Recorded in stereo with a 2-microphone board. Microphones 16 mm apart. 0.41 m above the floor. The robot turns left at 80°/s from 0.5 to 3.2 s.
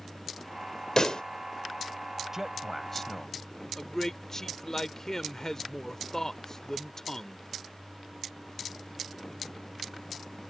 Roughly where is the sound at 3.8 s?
Left.